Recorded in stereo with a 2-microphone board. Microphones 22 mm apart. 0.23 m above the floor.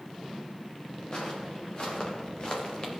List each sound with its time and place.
1.1 s footsteps: 40° left (ahead or behind), 3 m